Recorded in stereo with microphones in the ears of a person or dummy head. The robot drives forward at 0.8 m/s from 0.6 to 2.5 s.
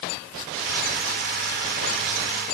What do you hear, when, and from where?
Only background noise.